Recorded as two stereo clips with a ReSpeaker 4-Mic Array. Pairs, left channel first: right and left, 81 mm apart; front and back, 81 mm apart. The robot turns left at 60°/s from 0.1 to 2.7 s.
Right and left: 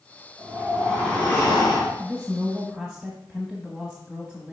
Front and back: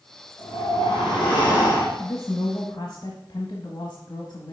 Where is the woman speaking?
40° left, 1.1 m; by 4.5 s straight ahead, 1.1 m.